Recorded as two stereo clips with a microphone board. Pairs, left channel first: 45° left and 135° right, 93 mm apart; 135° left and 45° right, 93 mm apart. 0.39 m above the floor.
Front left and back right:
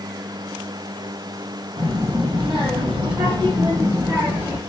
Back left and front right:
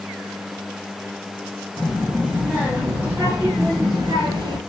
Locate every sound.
1.8 s a child speaking: 125° right, 2.5 m; by 4.6 s 65° right, 1.2 m